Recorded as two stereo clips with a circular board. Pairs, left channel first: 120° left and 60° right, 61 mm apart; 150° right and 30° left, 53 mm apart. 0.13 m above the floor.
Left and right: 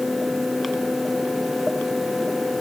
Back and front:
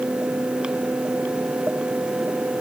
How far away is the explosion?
I don't hear an explosion.